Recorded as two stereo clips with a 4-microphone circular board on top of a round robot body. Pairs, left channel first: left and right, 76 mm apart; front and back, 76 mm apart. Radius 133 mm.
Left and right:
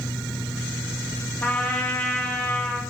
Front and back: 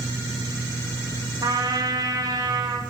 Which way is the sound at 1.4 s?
160° left.